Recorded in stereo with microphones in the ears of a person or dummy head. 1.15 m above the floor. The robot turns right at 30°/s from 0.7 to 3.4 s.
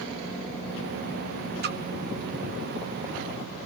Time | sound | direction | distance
1.6 | a splash | 50° right (ahead or behind) | 0.7 m